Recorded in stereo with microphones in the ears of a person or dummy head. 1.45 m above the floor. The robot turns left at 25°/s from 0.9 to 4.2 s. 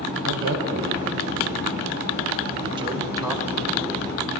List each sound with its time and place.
0.2 s a man speaking: 70° right (ahead or behind), 1.0 m; by 4.3 s 5° left (ahead or behind), 1.0 m